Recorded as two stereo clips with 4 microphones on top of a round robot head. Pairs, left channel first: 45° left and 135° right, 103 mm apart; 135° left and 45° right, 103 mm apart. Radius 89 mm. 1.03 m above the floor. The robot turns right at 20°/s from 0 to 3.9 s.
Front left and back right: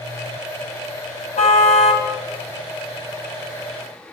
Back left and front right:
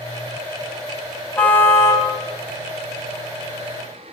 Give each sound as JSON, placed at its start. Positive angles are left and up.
{"t": 1.4, "sound": "a car horn", "azimuth_deg": 60, "distance_m": 4.0}